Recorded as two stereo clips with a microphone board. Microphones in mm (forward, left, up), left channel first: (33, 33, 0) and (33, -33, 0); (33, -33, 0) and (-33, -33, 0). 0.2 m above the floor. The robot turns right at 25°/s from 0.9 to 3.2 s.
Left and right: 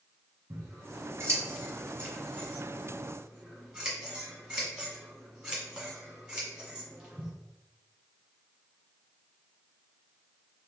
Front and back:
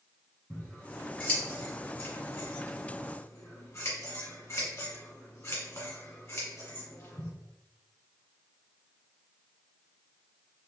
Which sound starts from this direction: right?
Scissors, at 0.5 s.